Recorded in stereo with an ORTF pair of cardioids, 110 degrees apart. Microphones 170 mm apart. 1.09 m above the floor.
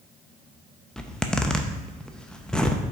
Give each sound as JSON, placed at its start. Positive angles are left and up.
{"t": 1.0, "sound": "a zipper", "azimuth_deg": 5, "distance_m": 0.6}